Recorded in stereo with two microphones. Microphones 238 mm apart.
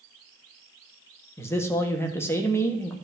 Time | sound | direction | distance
1.4 | a man speaking | 10° left (ahead or behind) | 1.2 m